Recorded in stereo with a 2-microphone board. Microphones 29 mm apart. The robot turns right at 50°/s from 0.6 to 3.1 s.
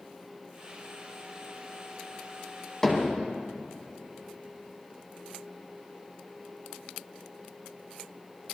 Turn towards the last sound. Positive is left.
turn(degrees=10)  # may be behind; listen again after turning